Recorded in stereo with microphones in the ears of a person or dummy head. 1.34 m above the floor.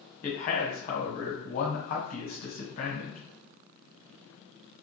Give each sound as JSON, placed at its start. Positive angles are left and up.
{"t": 0.2, "sound": "a man speaking", "side_deg": 40, "distance_m": 1.2}